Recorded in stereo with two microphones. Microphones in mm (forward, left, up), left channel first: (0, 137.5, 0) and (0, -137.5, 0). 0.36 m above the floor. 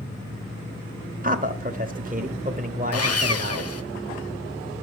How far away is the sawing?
About 0.7 m.